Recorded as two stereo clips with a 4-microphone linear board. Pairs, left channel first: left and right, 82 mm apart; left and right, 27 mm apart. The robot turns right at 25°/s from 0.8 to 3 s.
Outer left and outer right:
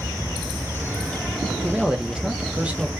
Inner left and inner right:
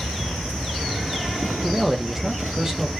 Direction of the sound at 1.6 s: 5° right (ahead or behind).